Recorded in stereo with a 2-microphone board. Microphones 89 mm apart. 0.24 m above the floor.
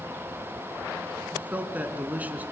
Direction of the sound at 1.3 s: 20° right (ahead or behind).